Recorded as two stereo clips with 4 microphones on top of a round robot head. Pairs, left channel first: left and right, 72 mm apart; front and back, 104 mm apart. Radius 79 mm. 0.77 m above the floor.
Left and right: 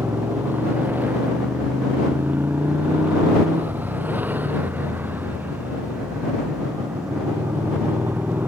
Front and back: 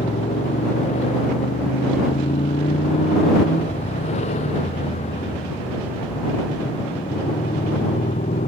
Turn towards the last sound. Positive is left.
turn(degrees=-25)